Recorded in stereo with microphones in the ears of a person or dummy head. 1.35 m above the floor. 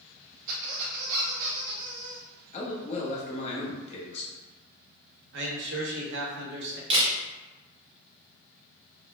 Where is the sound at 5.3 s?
70° right (ahead or behind), 0.9 m.